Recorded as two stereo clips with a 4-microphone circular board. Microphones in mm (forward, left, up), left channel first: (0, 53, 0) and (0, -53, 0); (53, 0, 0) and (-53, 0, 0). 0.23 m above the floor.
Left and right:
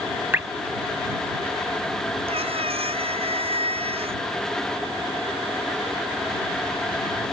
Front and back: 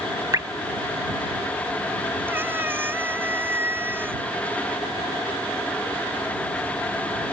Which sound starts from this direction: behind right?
Dripping, at 0.3 s.